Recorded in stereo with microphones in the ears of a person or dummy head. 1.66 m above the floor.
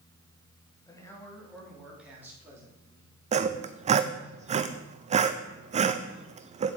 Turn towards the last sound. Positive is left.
turn(degrees=-35)  # may be behind; listen again after turning